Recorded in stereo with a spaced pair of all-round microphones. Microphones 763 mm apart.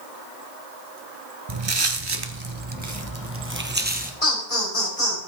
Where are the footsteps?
35° right (ahead or behind), 1.2 m; by 4.1 s 10° right (ahead or behind), 1.7 m.